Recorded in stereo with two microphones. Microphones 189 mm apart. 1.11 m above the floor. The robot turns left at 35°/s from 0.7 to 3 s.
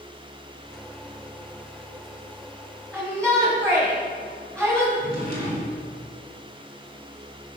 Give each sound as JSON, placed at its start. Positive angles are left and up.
{"t": 2.9, "sound": "a shout", "side_deg": 10, "distance_m": 6.0}
{"t": 5.0, "sound": "a drawer", "side_deg": 50, "distance_m": 4.5}